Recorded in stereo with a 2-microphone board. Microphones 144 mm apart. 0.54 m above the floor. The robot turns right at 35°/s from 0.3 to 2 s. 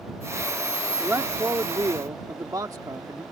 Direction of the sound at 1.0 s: 15° right (ahead or behind).